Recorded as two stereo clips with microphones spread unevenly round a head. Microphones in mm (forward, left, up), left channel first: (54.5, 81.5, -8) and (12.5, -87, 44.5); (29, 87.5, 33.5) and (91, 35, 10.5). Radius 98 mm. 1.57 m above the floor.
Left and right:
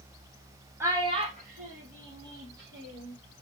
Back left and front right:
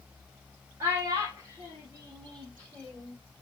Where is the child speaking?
115° right, 0.7 m.